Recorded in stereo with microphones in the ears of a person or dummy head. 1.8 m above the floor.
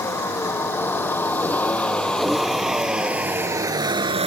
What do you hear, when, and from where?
0.0 s a vehicle: 15° left (ahead or behind); by 4.3 s 30° right (ahead or behind)